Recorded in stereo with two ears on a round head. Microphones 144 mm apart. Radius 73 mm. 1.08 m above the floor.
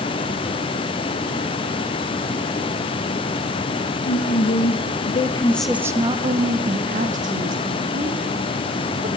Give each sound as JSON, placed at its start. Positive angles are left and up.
{"t": 4.0, "sound": "a woman speaking", "side_deg": 65, "distance_m": 1.3}